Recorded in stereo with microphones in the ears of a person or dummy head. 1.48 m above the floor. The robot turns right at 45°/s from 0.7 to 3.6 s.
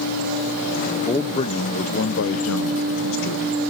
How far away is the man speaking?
About 1.0 m.